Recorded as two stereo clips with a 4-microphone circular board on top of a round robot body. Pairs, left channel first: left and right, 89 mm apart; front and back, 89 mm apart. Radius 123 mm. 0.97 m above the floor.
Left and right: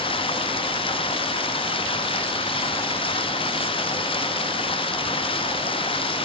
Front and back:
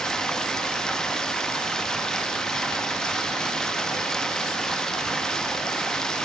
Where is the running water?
85° left, 1.7 m.